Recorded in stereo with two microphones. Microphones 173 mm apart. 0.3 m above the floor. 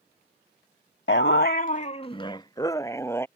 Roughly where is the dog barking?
Left.